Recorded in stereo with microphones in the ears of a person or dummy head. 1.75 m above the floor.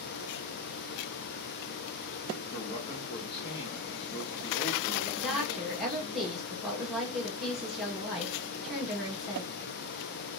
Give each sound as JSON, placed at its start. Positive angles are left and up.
{"t": 2.5, "sound": "a man speaking", "side_deg": 40, "distance_m": 1.0}
{"t": 5.2, "sound": "a woman speaking", "side_deg": -5, "distance_m": 1.7}